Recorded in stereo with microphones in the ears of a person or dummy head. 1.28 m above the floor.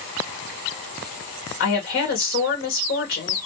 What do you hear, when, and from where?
1.6 s a woman speaking: 55° left (ahead or behind), 1.2 m